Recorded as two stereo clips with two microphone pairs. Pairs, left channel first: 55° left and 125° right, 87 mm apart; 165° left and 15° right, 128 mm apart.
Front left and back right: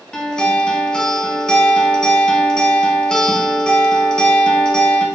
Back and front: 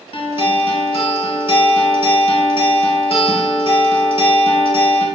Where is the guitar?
130° left, 0.5 m.